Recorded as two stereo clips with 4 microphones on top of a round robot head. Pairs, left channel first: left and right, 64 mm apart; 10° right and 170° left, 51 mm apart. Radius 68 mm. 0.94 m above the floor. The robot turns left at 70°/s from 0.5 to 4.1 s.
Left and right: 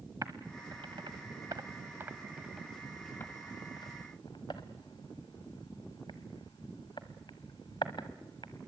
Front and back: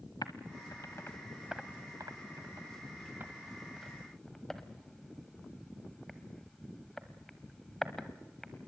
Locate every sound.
0.2 s typing on a keyboard: 35° right, 0.9 m; by 8.7 s 75° left, 0.9 m